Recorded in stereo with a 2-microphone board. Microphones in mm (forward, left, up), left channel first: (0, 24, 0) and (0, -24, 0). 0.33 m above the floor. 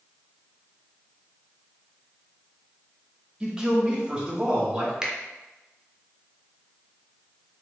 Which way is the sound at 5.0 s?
15° right (ahead or behind).